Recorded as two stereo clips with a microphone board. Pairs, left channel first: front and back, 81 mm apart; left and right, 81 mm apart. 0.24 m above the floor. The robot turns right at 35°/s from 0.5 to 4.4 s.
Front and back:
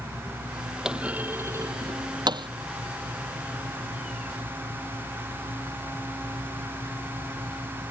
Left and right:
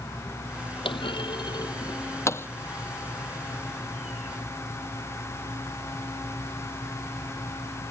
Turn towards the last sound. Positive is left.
turn(degrees=-135)